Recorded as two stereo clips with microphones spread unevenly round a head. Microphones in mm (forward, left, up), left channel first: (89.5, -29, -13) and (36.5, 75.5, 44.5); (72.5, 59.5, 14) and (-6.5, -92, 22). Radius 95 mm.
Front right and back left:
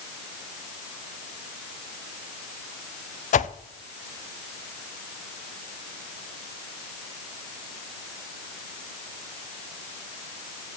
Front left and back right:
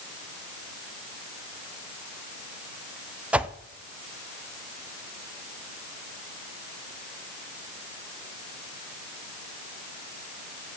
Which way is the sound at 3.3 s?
35° right.